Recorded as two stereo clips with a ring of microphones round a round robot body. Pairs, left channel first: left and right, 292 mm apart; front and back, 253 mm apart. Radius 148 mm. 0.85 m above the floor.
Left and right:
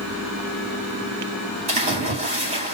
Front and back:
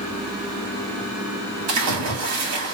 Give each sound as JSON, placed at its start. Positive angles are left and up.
{"t": 1.7, "sound": "a splash", "azimuth_deg": -160, "distance_m": 2.0}